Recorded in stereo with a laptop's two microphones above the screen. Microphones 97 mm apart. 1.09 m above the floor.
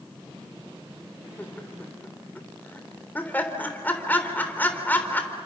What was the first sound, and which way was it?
Laughter, 20° left (ahead or behind).